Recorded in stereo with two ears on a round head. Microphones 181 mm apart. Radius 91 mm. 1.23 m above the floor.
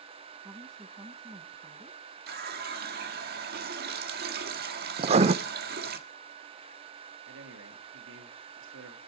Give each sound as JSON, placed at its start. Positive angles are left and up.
{"t": 0.4, "sound": "a woman speaking", "side_deg": -15, "distance_m": 1.5}
{"t": 2.3, "sound": "a running tap", "side_deg": -50, "distance_m": 1.5}
{"t": 5.0, "sound": "writing", "side_deg": -30, "distance_m": 0.5}
{"t": 7.3, "sound": "a man speaking", "side_deg": -70, "distance_m": 2.0}